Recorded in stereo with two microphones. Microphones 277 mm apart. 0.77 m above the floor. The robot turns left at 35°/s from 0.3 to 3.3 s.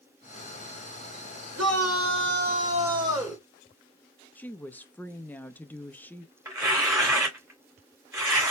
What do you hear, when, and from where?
1.6 s a shout: 115° right, 2.5 m; by 3.4 s 175° right, 2.5 m
4.3 s a woman speaking: 5° left (ahead or behind), 0.6 m
6.5 s tearing paper: 10° right (ahead or behind), 3 m